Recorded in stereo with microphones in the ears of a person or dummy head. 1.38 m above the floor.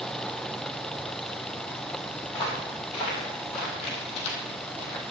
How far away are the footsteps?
About 4.5 m.